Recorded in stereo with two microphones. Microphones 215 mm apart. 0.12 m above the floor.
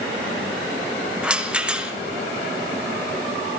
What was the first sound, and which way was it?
A rattle, 5° right (ahead or behind).